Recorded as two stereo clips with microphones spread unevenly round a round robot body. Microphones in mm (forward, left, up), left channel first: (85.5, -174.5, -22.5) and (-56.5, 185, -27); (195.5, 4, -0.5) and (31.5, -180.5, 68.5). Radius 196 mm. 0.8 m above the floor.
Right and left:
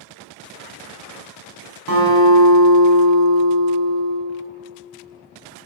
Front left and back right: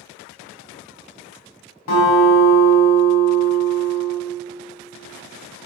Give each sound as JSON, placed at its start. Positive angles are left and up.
{"t": 1.9, "sound": "a guitar", "azimuth_deg": 60, "distance_m": 4.0}